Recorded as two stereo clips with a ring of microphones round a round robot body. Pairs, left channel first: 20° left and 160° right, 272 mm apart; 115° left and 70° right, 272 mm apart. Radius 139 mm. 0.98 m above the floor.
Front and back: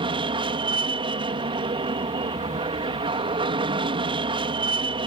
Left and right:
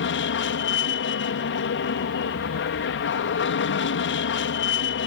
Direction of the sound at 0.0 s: 135° left.